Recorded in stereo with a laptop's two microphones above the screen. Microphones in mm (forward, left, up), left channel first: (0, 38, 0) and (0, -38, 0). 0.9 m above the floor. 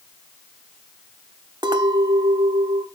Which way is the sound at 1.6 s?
80° right.